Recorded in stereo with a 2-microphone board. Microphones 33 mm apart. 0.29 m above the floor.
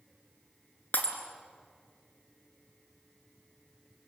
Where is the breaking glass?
55° left (ahead or behind), 2.5 m.